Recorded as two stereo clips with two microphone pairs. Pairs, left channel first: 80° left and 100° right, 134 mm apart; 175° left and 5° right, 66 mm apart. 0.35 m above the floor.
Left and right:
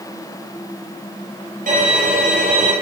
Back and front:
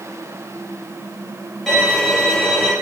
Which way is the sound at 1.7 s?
100° right.